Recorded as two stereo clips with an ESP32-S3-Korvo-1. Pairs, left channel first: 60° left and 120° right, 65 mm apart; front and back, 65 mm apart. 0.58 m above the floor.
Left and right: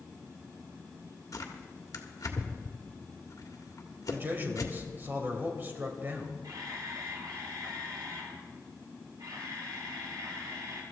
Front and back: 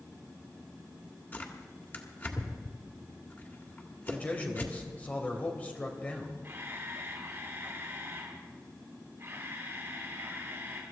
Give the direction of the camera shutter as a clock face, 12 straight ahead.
4 o'clock.